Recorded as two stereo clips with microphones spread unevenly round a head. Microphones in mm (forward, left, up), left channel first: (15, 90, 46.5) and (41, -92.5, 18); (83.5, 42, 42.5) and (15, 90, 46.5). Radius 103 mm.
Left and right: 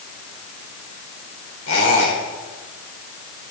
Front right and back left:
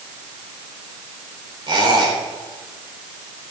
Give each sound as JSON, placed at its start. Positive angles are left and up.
{"t": 1.7, "sound": "a squeak", "azimuth_deg": 115, "distance_m": 4.0}